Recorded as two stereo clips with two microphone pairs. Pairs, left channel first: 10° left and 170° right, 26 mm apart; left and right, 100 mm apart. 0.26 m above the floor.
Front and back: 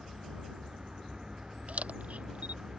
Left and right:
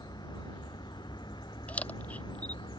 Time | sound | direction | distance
0.0 | a vehicle | 135° left | ?
1.7 | a camera shutter | 165° left | ?